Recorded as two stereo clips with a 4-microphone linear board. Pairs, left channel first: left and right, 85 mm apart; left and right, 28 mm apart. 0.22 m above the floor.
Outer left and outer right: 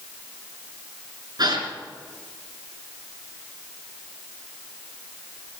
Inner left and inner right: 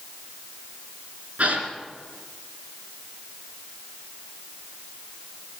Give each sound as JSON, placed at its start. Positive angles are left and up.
{"t": 1.4, "sound": "a gasp", "side_deg": -55, "distance_m": 3.5}